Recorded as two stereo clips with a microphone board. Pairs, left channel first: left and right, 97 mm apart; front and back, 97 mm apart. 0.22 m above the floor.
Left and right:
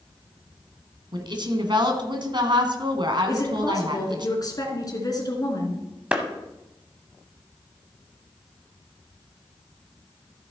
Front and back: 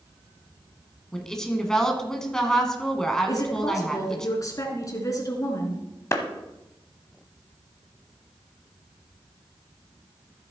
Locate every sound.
1.1 s a woman speaking: 85° right, 1.6 m
3.3 s a woman speaking: 45° left, 2.5 m
6.1 s a clap: 25° right, 1.2 m